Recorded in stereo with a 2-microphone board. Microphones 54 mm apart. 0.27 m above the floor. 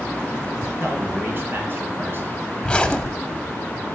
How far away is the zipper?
About 0.7 m.